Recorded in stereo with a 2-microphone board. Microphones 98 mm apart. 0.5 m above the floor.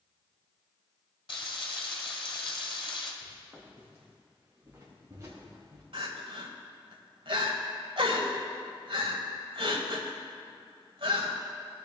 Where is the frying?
55° left (ahead or behind), 1.9 m.